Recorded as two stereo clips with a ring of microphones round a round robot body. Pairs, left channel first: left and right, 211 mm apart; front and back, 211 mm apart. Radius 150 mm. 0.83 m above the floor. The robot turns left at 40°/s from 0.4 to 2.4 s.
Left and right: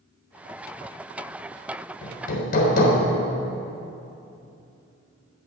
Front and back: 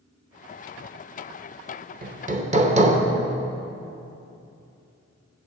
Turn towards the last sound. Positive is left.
turn(degrees=130)